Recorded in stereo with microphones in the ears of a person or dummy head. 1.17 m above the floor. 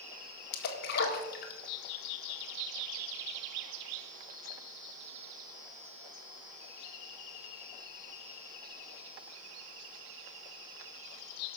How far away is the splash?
About 1.9 m.